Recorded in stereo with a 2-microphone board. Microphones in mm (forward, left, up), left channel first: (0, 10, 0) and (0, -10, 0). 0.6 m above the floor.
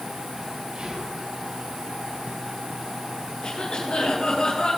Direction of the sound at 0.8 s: 55° right (ahead or behind).